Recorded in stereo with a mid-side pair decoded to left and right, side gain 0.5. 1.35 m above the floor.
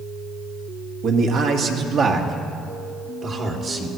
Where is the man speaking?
70° right, 1.7 m; by 3.9 s 50° right, 3 m.